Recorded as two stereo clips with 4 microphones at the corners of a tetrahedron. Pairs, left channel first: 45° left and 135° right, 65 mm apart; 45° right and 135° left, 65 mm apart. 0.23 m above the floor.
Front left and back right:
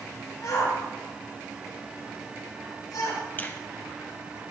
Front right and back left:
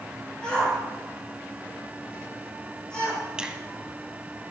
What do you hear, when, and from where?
0.4 s a shout: 30° left, 6 m
3.4 s a finger snap: 70° left, 1.1 m